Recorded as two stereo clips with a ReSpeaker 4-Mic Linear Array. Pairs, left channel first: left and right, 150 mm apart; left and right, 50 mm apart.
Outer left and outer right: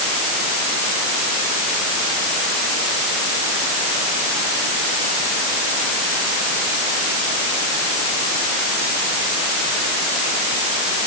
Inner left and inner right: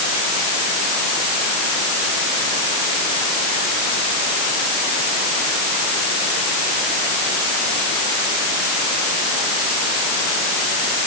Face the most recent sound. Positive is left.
No sound to turn to.